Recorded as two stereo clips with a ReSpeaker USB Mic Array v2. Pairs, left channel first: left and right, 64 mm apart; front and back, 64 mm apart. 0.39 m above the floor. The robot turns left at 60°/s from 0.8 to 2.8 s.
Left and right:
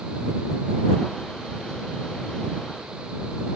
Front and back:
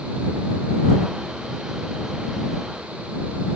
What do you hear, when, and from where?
Only background noise.